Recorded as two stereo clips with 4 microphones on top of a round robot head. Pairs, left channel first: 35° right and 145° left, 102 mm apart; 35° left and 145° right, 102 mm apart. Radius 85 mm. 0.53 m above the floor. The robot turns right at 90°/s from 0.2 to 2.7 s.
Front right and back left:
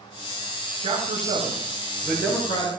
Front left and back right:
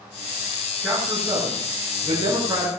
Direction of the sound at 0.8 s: 120° left.